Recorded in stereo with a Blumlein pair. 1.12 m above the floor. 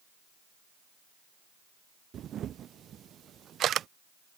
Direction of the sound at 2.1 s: 25° right.